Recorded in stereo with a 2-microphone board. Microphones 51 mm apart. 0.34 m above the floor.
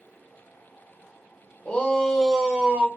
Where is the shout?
30° left (ahead or behind), 1.0 m; by 2.9 s 25° right (ahead or behind), 1.0 m.